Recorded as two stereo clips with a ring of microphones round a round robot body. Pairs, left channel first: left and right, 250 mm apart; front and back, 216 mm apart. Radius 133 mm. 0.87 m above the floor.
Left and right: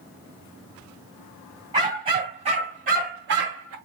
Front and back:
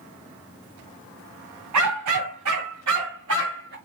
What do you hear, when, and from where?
1.7 s a dog barking: 165° right, 2.0 m; by 3.8 s 125° right, 1.0 m